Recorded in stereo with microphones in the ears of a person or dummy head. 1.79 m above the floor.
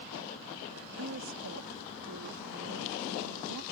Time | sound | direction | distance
1.0 | a woman speaking | 70° right (ahead or behind) | ?